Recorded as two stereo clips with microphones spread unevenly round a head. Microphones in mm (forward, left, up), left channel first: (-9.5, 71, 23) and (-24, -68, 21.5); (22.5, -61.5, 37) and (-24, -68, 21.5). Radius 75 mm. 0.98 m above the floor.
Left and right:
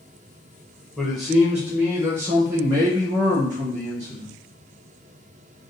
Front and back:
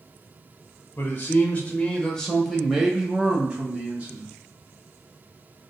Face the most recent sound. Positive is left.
turn(degrees=-150)